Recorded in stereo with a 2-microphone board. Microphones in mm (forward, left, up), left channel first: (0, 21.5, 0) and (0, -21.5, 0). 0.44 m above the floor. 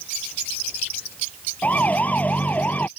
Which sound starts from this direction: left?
A siren, at 1.6 s.